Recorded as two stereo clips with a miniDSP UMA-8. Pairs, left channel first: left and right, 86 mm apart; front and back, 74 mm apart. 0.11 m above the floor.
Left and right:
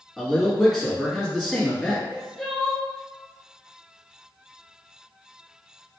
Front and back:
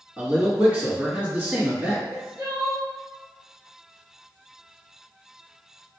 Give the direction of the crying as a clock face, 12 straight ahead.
6 o'clock.